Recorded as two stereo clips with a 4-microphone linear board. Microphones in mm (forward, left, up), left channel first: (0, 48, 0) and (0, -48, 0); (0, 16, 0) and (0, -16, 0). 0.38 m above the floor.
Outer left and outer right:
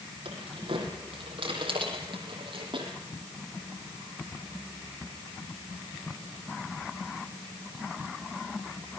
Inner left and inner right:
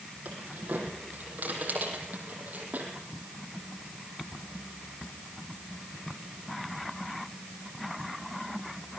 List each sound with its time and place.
0.2 s keys jangling: 60° right (ahead or behind), 9.5 m; by 2.9 s 55° right (ahead or behind), 8 m